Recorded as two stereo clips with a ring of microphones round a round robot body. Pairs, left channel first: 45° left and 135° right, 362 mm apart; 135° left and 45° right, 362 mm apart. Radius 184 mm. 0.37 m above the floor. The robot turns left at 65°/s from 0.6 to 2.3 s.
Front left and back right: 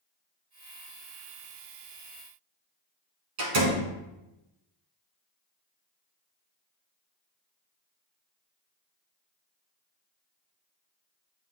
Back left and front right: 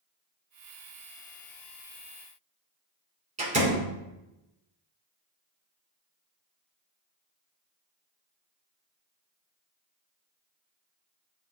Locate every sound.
3.4 s a door slam: 115° right, 3.5 m